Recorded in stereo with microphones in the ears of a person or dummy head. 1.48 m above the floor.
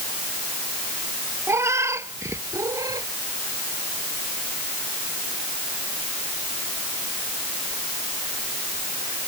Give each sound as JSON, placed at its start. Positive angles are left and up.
{"t": 1.5, "sound": "a cat meowing", "side_deg": -10}